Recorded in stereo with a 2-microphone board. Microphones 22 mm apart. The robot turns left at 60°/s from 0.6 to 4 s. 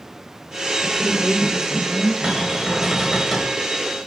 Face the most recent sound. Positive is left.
turn(degrees=135)